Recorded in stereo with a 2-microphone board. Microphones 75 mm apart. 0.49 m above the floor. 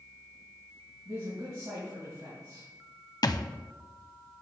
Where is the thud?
55° left (ahead or behind), 0.5 m.